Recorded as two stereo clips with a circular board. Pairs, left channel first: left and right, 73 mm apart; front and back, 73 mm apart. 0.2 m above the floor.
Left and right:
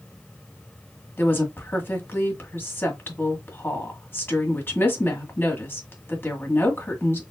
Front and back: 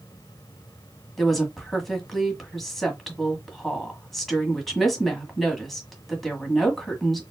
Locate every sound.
1.2 s a woman speaking: 85° left, 1.5 m